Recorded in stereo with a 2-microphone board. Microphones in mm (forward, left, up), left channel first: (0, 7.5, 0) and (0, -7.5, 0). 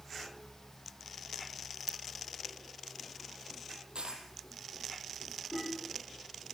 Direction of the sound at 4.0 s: 75° right (ahead or behind).